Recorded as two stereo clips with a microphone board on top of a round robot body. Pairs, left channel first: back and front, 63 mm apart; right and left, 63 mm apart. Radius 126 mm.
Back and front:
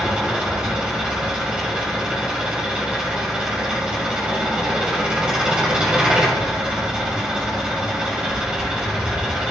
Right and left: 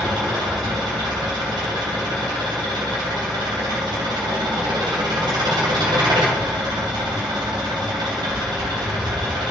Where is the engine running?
75° left, 3 m.